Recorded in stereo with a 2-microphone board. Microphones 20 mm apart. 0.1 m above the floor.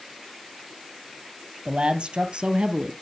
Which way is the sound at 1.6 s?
50° right (ahead or behind).